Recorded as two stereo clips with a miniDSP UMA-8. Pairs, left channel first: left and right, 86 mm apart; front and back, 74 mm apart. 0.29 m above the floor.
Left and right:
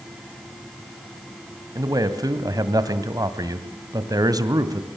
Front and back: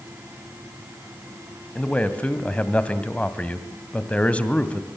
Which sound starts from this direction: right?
A man speaking, at 1.8 s.